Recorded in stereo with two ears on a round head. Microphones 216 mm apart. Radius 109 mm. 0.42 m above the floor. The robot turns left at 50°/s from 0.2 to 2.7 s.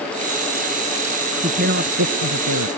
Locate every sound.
1.4 s a woman speaking: 25° right; by 2.7 s 90° right